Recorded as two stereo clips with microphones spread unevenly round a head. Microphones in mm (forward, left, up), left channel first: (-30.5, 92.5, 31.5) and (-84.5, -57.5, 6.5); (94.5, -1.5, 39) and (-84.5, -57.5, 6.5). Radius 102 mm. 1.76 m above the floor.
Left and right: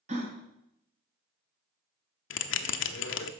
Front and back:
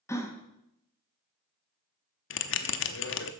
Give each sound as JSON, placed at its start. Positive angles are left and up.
{"t": 0.1, "sound": "a gasp", "azimuth_deg": -50, "distance_m": 1.6}
{"t": 2.3, "sound": "a bell", "azimuth_deg": 55, "distance_m": 0.7}